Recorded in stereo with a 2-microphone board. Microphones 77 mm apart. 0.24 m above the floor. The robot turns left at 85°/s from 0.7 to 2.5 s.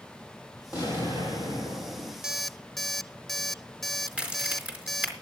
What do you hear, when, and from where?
0.7 s an explosion: 130° left, 7 m; by 2.1 s 10° left, 7 m
2.2 s an alarm clock: 10° right (ahead or behind), 0.5 m; by 5.1 s centre (ahead or behind), 0.5 m
4.1 s a crack: 15° right (ahead or behind), 4 m